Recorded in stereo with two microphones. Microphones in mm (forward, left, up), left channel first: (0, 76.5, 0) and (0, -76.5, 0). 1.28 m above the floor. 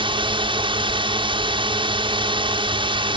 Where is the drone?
35° right (ahead or behind).